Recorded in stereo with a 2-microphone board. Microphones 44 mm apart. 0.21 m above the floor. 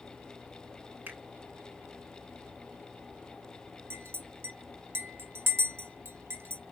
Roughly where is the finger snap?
Right.